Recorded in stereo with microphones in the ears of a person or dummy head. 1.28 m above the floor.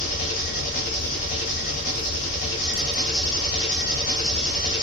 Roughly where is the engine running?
Left.